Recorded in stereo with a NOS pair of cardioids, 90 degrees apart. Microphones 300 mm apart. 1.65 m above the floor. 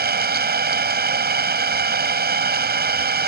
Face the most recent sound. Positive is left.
turn(degrees=-35)